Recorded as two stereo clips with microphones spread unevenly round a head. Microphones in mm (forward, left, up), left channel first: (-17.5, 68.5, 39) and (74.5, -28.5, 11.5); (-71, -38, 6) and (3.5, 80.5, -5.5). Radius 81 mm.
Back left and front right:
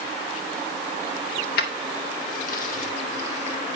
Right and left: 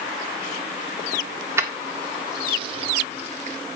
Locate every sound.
1.6 s keys jangling: 130° left, 1.9 m; by 3.6 s 90° left, 2.5 m